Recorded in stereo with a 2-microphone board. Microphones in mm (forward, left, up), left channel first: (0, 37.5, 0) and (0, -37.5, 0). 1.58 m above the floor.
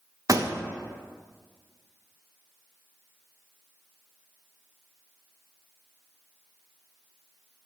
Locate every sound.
0.3 s a pop: 50° right (ahead or behind), 0.5 m